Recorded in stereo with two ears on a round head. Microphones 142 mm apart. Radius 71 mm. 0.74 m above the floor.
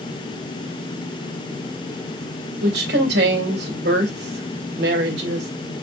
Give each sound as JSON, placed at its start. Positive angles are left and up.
{"t": 2.6, "sound": "a woman speaking", "side_deg": -75, "distance_m": 2.5}